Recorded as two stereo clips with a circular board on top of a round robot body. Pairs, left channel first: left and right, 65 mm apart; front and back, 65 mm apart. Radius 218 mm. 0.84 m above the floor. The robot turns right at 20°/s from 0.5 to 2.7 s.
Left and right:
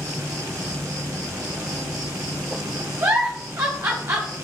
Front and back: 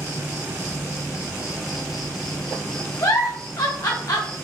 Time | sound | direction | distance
0.0 | an insect | 120° right | 1.2 m
3.0 | a giggle | 40° right | 0.6 m